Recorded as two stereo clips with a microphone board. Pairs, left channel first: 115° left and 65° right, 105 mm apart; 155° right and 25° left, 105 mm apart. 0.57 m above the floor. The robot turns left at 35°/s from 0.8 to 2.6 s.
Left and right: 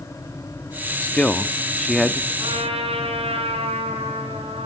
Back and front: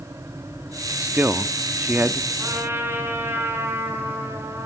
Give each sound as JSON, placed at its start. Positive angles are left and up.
{"t": 1.0, "sound": "a man speaking", "azimuth_deg": 60, "distance_m": 0.8}
{"t": 2.4, "sound": "a trumpet", "azimuth_deg": -40, "distance_m": 7.5}